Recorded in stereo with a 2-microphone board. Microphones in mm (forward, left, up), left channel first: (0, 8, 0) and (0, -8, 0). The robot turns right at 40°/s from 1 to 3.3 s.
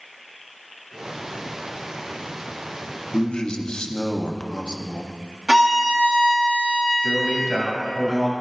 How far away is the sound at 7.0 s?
About 2 m.